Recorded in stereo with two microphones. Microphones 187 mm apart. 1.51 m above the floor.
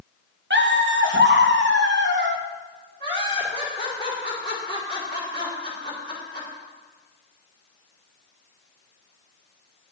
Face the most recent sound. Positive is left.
turn(degrees=25)  # may be behind; listen again after turning